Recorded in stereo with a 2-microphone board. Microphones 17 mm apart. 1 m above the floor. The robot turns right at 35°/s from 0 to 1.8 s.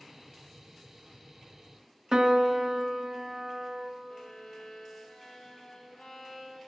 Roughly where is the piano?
Right.